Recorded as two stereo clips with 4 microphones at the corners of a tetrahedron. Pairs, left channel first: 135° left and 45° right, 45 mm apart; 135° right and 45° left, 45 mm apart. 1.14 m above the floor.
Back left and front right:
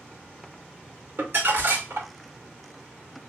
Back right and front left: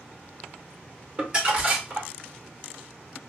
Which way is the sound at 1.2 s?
20° right.